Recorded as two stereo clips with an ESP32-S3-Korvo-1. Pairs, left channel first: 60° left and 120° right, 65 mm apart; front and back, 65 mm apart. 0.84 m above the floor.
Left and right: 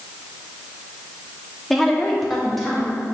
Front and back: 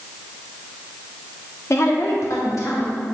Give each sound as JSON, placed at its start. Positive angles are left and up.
{"t": 1.7, "sound": "a woman speaking", "azimuth_deg": -25, "distance_m": 1.4}